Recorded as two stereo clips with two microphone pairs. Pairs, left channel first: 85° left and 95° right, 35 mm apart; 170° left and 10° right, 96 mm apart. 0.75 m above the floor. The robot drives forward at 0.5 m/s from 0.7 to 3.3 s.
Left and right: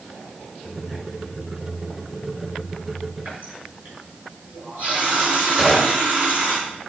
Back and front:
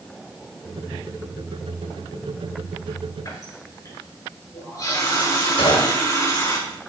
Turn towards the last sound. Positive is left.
turn(degrees=-160)